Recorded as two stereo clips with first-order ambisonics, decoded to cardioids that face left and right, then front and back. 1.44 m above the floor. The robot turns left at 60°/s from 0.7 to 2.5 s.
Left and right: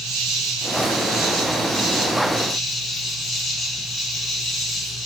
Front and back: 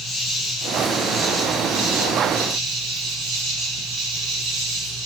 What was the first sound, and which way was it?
An insect, 95° right.